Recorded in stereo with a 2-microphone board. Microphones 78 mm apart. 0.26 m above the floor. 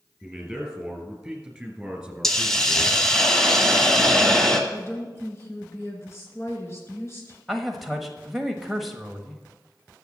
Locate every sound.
0.2 s a man speaking: centre (ahead or behind), 4 m; by 3.0 s 10° right (ahead or behind), 2.5 m
2.2 s a hiss: 5° left (ahead or behind), 1.3 m
4.7 s a woman speaking: 35° left (ahead or behind), 3.5 m
7.5 s a man speaking: centre (ahead or behind), 1.2 m